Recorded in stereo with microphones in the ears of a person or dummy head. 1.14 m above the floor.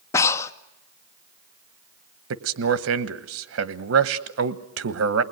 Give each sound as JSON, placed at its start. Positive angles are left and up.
{"t": 0.1, "sound": "breathing", "side_deg": 20, "distance_m": 0.6}
{"t": 2.3, "sound": "a man speaking", "side_deg": -70, "distance_m": 1.1}